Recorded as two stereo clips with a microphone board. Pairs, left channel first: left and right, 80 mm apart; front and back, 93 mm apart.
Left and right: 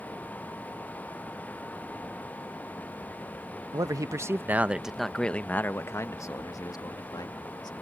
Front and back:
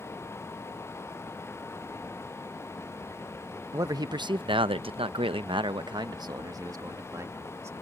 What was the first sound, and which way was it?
A man speaking, 130° right.